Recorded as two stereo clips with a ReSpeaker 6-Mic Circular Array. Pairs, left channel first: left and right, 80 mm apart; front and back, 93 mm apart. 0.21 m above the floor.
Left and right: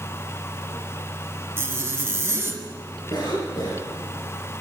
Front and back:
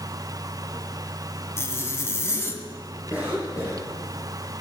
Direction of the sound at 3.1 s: 110° left.